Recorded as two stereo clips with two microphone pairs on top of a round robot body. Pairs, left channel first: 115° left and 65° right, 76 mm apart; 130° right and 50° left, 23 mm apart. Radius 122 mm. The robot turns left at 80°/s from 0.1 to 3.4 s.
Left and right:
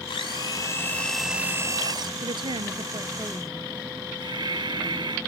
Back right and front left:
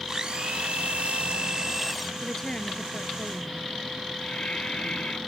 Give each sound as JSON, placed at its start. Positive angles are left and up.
{"t": 0.1, "sound": "a blender", "azimuth_deg": 115}
{"t": 2.2, "sound": "a woman speaking", "azimuth_deg": -45}
{"t": 4.2, "sound": "breathing", "azimuth_deg": -85}